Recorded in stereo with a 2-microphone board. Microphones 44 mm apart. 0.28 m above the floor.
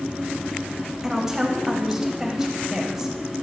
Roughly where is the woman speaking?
Centre.